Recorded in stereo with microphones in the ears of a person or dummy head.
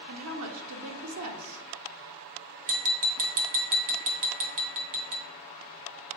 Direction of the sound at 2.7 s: 40° right (ahead or behind).